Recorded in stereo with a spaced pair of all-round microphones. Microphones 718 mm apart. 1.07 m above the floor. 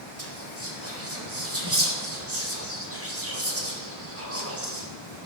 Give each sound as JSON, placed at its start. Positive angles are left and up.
{"t": 0.2, "sound": "whispering", "side_deg": -20, "distance_m": 4.0}